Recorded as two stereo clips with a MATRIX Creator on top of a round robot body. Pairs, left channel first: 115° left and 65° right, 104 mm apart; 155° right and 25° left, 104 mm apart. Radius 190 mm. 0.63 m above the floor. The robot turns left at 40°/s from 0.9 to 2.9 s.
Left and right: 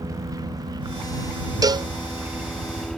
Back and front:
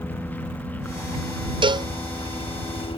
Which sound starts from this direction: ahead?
A cowbell, at 1.6 s.